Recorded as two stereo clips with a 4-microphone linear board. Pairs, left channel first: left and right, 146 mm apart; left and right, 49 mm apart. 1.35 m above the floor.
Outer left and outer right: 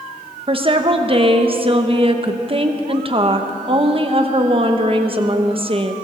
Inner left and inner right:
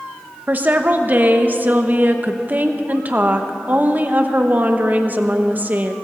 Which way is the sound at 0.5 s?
40° right (ahead or behind).